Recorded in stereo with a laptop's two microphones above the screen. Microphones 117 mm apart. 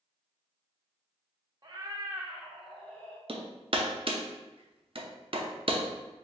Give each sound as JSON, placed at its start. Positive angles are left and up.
{"t": 1.6, "sound": "a cat meowing", "side_deg": -35, "distance_m": 0.7}
{"t": 3.3, "sound": "hammering", "side_deg": -50, "distance_m": 0.6}